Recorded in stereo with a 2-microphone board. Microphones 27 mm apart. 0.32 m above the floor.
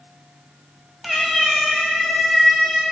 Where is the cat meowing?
5° right (ahead or behind), 0.6 m; by 2.8 s 15° left (ahead or behind), 2.5 m.